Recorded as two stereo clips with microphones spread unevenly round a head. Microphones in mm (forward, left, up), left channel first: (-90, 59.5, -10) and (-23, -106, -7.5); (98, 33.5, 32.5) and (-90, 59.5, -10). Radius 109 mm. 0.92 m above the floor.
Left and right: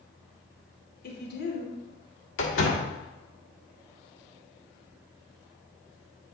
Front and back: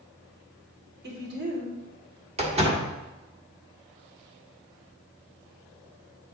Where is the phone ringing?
No phone ringing in this recording.